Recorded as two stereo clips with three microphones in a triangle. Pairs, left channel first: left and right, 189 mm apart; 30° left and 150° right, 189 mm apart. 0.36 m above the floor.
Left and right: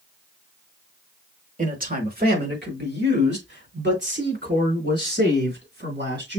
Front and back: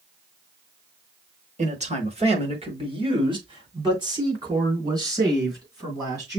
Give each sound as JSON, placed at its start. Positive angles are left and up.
{"t": 1.6, "sound": "a man speaking", "azimuth_deg": -115, "distance_m": 1.1}